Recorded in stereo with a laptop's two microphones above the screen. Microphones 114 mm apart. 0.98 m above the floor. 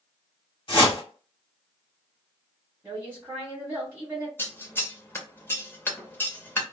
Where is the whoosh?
45° left (ahead or behind), 1.2 m.